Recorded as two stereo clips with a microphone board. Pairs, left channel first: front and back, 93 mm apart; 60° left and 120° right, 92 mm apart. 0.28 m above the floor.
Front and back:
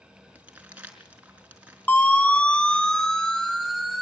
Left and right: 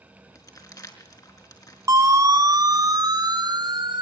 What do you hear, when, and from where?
0.3 s crumpling: 105° left, 4.5 m
1.9 s a siren: 70° right, 3.5 m; by 4.0 s 90° right, 4 m